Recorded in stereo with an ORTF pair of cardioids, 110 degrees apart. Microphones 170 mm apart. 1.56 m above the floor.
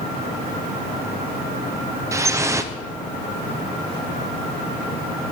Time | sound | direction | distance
2.1 | dripping | 20° right | 0.7 m